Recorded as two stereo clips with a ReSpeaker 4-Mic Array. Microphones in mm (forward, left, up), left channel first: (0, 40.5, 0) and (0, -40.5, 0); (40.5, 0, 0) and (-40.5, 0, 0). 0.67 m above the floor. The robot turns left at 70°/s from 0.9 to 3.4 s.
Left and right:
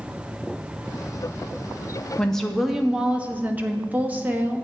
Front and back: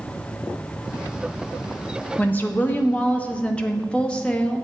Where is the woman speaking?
30° left, 0.6 m; by 4.6 s 55° right, 0.6 m.